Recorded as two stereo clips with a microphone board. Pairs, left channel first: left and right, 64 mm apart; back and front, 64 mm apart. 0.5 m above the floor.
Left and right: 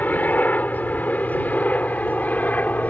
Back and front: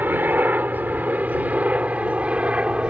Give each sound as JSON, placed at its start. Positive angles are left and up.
{"t": 0.0, "sound": "a helicopter", "azimuth_deg": 40}